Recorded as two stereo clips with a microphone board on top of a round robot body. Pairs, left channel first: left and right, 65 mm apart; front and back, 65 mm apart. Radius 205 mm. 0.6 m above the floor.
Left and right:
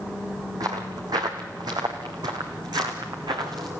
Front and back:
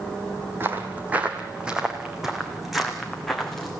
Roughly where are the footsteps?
Behind right.